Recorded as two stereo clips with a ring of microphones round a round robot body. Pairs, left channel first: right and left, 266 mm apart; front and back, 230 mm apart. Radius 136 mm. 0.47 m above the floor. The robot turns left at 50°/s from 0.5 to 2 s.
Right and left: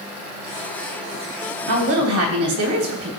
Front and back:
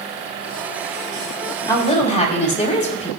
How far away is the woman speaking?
About 3 m.